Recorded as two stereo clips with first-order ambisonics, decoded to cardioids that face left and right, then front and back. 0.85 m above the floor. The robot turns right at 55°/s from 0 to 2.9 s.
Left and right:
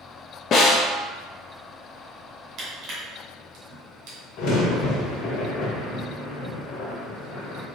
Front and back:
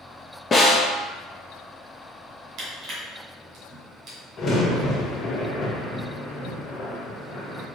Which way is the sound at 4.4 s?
65° left.